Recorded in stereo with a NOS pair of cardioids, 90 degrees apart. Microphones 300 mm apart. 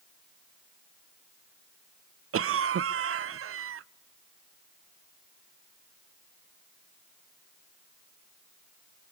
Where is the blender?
No blender in this recording.